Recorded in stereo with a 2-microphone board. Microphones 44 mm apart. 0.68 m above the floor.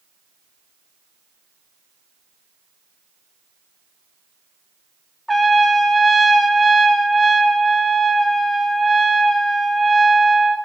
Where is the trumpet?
5° left (ahead or behind), 0.9 m.